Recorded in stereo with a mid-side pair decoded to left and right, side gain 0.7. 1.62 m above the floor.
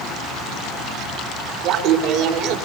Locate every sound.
1.6 s laughter: 60° right, 4 m